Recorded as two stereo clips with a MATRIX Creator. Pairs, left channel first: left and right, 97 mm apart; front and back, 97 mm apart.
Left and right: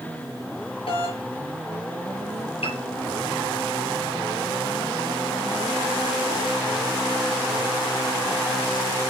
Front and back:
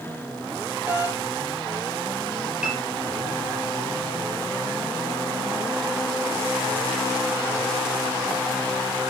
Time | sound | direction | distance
0.9 | a doorbell | 105° left | 6.5 m
2.6 | a piano | 100° left | 5.5 m